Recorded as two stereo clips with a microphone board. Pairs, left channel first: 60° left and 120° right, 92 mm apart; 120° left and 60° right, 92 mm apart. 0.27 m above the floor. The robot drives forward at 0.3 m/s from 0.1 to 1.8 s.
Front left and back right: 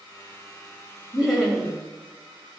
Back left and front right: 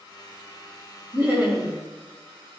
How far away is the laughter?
About 1.7 m.